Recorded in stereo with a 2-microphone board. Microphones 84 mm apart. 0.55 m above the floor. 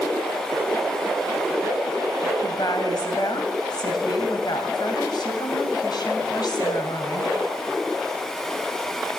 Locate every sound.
2.4 s a woman speaking: 55° left (ahead or behind), 2.5 m